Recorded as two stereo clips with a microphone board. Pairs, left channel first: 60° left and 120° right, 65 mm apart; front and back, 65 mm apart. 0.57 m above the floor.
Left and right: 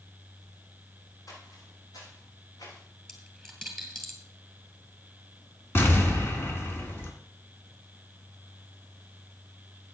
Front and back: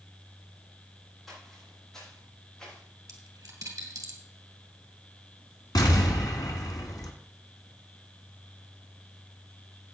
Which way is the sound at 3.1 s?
145° left.